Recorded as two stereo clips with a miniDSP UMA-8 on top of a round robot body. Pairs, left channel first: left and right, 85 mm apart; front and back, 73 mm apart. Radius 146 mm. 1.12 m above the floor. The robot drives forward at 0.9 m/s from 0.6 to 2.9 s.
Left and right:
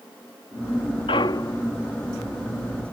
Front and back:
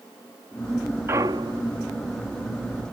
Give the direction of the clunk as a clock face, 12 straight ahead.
8 o'clock.